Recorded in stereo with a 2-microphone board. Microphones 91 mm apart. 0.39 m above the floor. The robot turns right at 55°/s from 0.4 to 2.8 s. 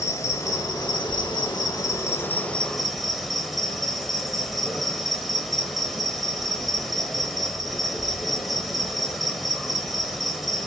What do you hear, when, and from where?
0.0 s an insect: 45° left, 0.8 m; by 10.7 s straight behind, 0.8 m